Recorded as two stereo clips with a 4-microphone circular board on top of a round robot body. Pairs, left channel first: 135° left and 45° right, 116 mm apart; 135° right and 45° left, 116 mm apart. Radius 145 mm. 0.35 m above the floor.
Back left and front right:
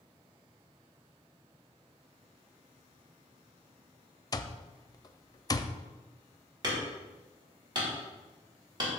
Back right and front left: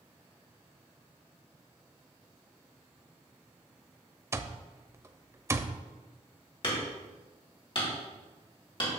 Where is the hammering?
95° right, 3.5 m.